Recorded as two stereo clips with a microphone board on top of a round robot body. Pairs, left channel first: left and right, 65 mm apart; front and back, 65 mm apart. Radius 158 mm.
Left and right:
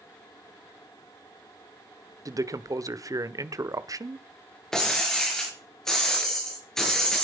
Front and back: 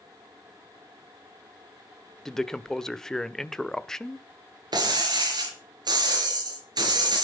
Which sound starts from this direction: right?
A man speaking, at 2.2 s.